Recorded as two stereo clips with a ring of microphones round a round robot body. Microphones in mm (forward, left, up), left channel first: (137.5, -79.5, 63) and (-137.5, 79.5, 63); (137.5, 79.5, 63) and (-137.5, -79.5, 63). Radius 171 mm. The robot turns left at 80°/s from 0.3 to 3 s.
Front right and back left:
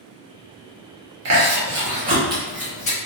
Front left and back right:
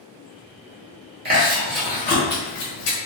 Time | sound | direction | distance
1.2 | chewing | 160° left | 1.2 m